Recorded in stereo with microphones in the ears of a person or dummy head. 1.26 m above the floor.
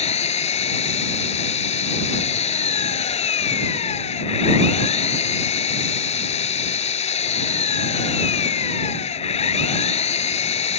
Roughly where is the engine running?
Left.